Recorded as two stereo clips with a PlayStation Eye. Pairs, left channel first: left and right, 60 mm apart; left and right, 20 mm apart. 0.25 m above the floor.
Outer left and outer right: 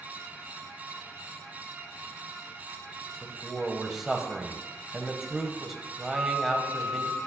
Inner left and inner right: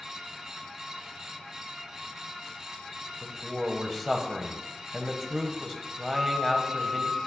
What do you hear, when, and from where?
3.2 s a man speaking: 5° right (ahead or behind), 1.1 m
6.1 s a flute: 25° right (ahead or behind), 3 m